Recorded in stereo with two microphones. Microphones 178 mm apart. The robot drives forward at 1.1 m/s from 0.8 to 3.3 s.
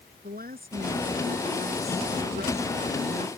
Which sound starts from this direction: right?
A woman speaking, at 0.2 s.